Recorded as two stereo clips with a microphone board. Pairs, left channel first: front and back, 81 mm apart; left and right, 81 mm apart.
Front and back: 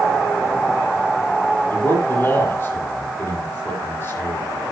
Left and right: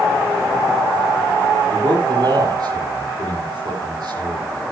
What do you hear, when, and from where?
1.7 s a man speaking: 65° right, 8.5 m